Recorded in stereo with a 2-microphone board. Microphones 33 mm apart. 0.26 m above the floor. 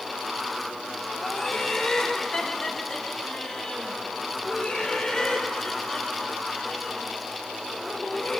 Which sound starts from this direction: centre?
Laughter, at 1.2 s.